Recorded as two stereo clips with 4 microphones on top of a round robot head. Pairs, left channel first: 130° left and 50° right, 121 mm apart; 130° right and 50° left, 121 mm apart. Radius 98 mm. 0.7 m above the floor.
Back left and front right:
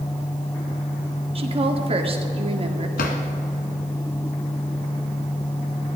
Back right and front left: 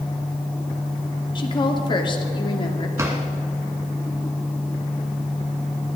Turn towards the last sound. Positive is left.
turn(degrees=120)